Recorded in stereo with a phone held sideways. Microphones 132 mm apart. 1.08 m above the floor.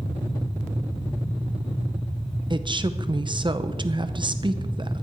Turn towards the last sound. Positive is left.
turn(degrees=-35)  # may be behind; listen again after turning